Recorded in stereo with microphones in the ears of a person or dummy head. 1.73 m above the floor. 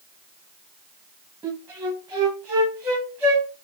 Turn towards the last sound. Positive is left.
turn(degrees=-10)  # may be behind; listen again after turning